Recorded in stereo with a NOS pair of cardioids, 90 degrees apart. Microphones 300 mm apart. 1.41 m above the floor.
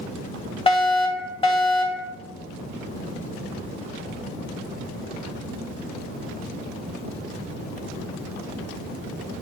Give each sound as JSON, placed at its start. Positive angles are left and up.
{"t": 0.7, "sound": "a fire alarm", "azimuth_deg": 20, "distance_m": 2.5}